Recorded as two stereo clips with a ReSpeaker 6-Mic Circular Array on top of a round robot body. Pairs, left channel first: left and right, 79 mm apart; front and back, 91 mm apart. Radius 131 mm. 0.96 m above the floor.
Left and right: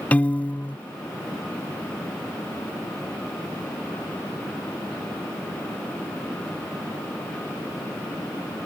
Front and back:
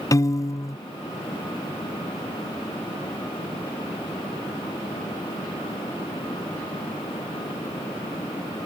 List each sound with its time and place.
0.1 s a piano: 25° left